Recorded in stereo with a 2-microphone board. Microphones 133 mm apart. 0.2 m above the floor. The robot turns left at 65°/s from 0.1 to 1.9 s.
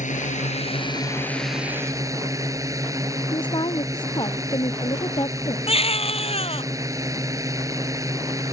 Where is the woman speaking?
35° left (ahead or behind).